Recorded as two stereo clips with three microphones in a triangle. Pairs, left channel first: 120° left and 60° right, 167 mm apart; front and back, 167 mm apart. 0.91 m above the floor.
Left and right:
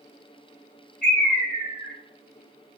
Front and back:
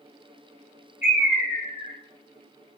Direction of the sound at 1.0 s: 100° left.